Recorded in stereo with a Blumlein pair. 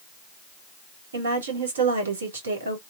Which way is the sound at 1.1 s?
65° right.